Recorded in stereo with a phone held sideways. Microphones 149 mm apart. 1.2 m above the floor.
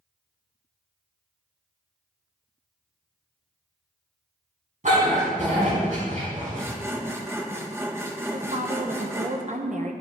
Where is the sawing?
15° right (ahead or behind), 1.2 m.